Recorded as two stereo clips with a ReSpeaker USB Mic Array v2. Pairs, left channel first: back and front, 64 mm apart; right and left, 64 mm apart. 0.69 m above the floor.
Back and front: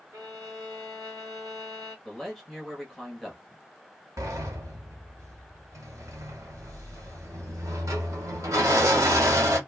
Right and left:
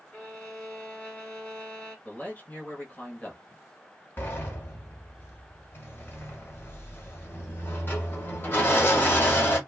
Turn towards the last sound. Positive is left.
turn(degrees=-30)